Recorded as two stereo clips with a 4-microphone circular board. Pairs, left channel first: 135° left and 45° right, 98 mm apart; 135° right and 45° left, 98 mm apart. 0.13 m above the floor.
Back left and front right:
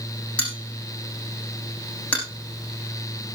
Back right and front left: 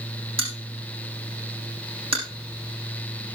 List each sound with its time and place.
0.4 s a bell: 60° left, 8 m